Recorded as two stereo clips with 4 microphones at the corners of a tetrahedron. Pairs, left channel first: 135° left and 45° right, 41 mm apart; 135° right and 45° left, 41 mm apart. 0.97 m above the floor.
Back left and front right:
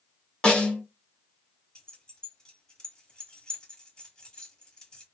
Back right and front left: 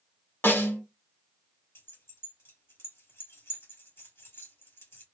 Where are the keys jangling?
150° right, 1.9 m.